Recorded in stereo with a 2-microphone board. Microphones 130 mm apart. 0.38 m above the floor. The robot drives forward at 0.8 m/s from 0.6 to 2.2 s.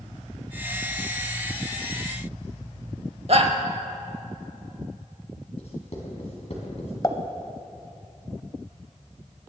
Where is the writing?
55° left (ahead or behind), 3 m.